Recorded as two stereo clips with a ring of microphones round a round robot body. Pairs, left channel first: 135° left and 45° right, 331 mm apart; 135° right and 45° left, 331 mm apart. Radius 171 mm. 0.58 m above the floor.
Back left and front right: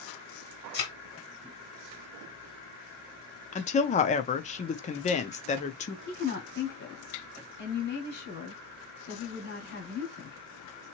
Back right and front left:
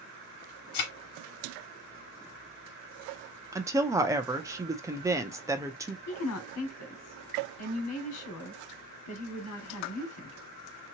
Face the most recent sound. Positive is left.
turn(degrees=-170)